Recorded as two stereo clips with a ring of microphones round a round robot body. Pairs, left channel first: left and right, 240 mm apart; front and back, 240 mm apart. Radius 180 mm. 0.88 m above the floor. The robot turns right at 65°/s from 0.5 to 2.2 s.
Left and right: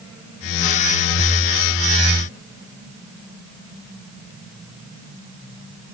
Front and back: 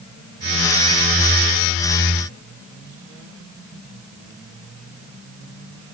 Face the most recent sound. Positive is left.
No sound to turn to.